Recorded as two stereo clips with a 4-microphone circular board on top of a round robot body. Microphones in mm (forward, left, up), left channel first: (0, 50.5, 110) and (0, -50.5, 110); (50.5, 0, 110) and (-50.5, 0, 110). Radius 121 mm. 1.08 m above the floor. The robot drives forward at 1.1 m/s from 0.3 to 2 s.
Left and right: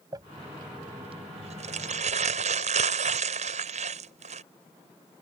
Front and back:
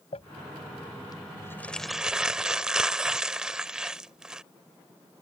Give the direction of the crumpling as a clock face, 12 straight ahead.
1 o'clock.